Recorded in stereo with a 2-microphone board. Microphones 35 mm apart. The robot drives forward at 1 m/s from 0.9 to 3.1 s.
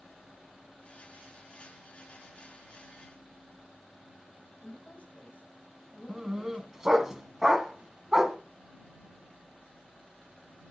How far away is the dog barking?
About 1.3 m.